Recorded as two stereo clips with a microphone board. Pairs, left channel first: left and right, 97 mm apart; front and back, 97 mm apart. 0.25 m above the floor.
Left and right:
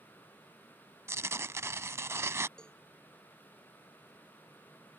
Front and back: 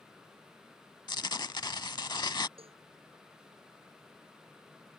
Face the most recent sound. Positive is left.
turn(degrees=170)